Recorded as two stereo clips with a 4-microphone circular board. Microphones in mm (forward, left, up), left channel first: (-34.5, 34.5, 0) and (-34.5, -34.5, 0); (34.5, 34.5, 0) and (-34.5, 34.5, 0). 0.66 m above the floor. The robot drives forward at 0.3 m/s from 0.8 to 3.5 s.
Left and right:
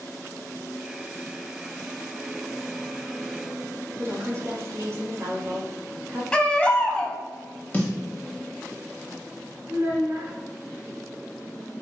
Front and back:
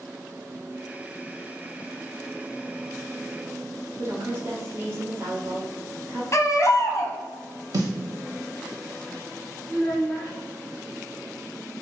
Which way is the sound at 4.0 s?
130° right.